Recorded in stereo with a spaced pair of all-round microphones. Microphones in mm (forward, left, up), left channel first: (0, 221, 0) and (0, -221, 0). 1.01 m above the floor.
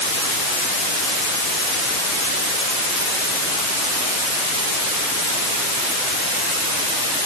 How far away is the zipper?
I don't hear a zipper.